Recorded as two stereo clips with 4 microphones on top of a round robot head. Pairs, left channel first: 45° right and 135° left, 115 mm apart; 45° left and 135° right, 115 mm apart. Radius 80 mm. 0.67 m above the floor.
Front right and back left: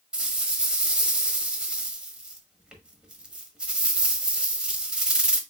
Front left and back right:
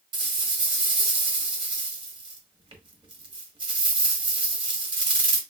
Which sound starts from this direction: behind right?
A rattle, at 0.1 s.